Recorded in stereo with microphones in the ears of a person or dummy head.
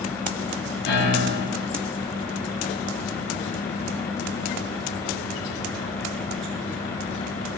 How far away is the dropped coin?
No dropped coin in this recording.